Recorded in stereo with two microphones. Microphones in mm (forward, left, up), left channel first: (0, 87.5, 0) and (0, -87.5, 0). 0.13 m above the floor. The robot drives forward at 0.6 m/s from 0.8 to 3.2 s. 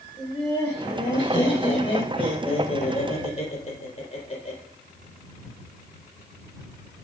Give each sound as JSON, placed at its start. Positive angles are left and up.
{"t": 0.2, "sound": "laughter", "side_deg": 25, "distance_m": 4.0}